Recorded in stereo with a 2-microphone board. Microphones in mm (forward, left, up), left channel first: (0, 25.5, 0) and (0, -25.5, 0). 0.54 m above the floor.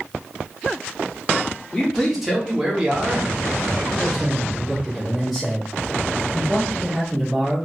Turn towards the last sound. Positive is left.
turn(degrees=0)  # may be behind; listen again after turning